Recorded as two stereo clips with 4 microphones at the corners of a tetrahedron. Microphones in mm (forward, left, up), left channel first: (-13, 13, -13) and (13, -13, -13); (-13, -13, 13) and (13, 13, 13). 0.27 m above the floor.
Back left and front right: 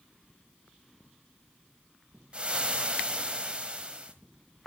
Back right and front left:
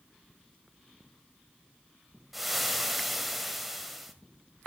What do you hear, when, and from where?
2.3 s frying: 40° right, 1.6 m